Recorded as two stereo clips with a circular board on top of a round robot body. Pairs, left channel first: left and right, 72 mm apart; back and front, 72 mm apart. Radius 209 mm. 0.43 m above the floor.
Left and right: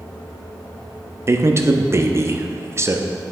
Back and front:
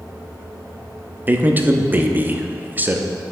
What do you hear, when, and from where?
1.3 s a man speaking: 55° right, 1.0 m